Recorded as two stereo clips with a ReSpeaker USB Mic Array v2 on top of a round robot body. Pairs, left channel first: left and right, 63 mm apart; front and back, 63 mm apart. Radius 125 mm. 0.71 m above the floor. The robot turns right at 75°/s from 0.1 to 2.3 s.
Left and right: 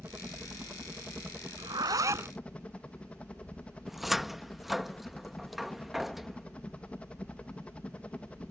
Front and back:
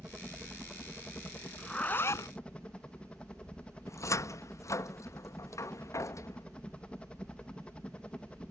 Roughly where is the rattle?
No rattle in this recording.